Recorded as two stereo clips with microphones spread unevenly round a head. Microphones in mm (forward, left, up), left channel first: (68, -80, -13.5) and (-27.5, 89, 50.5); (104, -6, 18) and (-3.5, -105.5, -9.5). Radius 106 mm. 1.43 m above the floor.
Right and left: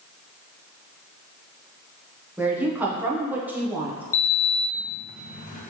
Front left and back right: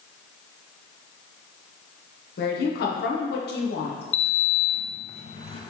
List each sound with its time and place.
2.4 s a woman speaking: 35° left, 0.9 m
4.1 s a sliding door: 5° right, 0.7 m